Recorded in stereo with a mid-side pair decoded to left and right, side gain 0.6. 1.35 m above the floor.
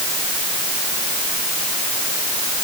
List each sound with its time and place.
Only background noise.